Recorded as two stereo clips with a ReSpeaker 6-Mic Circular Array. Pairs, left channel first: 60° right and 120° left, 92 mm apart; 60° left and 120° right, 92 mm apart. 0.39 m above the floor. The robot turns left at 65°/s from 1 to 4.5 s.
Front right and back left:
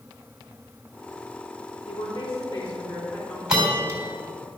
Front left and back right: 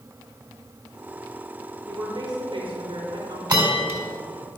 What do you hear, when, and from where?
1.9 s a woman speaking: 45° right, 3.5 m; by 3.4 s 145° right, 3.5 m
3.5 s a bell: 160° right, 3.5 m; by 4.0 s 170° left, 3.5 m